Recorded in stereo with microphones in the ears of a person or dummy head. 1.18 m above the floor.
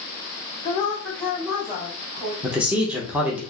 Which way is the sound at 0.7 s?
35° left (ahead or behind).